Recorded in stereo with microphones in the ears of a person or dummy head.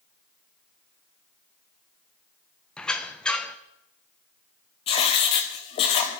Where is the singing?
No singing in this recording.